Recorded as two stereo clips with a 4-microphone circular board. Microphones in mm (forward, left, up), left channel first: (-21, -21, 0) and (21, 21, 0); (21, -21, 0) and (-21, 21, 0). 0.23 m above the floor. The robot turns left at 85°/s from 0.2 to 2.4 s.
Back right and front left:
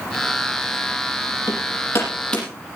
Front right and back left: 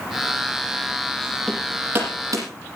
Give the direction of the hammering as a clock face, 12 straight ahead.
4 o'clock.